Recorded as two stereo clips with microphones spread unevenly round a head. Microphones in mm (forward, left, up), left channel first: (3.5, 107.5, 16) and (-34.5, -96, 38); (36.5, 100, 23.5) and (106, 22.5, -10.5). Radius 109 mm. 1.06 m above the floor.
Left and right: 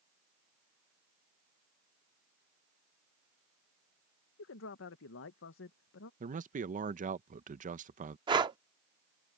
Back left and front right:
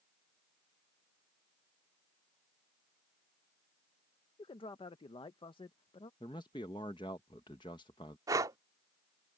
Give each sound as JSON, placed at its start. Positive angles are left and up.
{"t": 4.4, "sound": "a man speaking", "azimuth_deg": 85}
{"t": 6.2, "sound": "a man speaking", "azimuth_deg": -155}
{"t": 8.3, "sound": "breathing", "azimuth_deg": -120}